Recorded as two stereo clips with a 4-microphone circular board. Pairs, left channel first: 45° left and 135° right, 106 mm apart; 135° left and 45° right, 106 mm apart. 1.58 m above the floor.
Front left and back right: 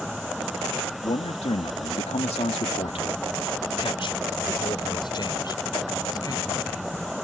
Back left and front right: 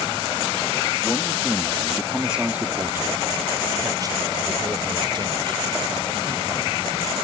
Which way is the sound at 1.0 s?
70° left.